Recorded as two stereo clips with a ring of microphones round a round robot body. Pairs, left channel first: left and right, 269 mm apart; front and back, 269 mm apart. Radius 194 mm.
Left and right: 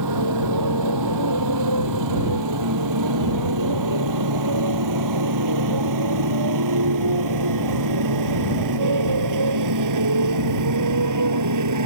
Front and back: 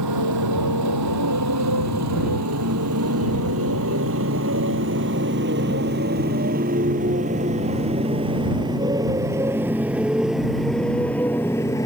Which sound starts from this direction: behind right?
A motorcycle, at 0.0 s.